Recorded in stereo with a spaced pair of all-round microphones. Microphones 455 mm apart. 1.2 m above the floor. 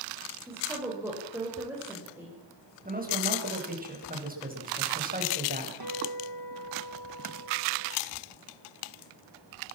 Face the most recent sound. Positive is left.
turn(degrees=-50)  # may be behind; listen again after turning